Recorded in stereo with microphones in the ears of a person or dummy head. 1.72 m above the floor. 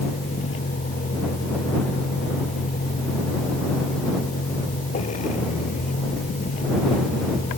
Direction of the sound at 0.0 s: 40° left (ahead or behind).